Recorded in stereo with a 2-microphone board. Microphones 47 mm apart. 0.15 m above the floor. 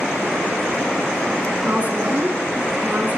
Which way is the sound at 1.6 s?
30° right (ahead or behind).